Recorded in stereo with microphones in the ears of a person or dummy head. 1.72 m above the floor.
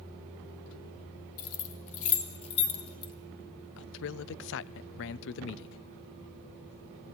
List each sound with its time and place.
1.4 s keys jangling: 45° left (ahead or behind), 3 m; by 3.1 s 25° left (ahead or behind), 3 m
3.8 s a man speaking: 65° left (ahead or behind), 0.8 m